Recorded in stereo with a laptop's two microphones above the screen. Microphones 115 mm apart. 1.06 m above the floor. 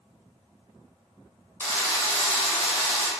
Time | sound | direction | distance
1.6 | a drill | 20° left (ahead or behind) | 1.3 m